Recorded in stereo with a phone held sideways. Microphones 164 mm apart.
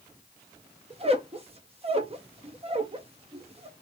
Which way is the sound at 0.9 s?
35° right (ahead or behind).